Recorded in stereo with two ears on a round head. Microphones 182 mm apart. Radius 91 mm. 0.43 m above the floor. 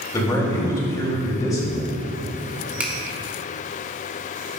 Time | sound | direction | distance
0.1 | a man speaking | 20° left (ahead or behind) | 2 m
2.8 | a finger snap | 10° right (ahead or behind) | 1.2 m